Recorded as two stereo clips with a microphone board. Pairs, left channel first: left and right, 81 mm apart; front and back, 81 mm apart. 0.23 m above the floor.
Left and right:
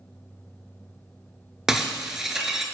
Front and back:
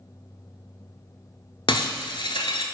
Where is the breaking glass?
5° right, 0.7 m.